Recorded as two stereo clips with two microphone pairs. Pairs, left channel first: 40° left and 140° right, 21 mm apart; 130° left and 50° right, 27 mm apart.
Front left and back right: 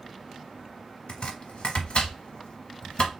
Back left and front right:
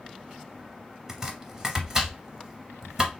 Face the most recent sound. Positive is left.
turn(degrees=20)